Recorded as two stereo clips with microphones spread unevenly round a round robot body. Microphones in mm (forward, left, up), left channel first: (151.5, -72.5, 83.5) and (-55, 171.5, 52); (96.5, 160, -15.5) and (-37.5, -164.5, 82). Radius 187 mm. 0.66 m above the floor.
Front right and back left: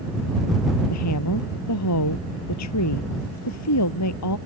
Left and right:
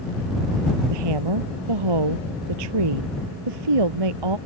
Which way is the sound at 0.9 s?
95° right.